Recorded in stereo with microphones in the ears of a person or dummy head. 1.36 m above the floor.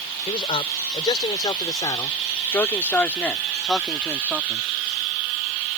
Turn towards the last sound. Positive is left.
turn(degrees=-10)  # may be behind; listen again after turning